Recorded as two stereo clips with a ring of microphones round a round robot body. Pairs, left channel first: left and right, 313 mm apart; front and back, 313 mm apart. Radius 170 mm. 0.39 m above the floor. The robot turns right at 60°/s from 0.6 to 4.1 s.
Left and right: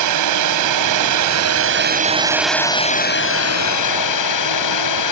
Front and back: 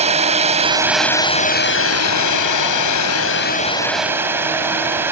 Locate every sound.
0.0 s a drone: 115° right; by 5.1 s 95° left